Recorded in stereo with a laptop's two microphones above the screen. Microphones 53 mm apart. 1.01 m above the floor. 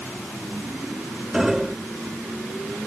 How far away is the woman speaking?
I don't hear a woman speaking.